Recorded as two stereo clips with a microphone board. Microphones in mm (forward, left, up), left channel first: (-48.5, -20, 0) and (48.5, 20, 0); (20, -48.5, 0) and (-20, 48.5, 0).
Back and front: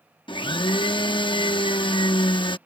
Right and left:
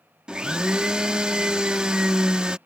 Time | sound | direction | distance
0.3 | a blender | 165° right | ?